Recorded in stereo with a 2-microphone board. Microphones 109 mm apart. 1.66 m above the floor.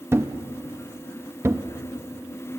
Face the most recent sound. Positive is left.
turn(degrees=-25)  # may be behind; listen again after turning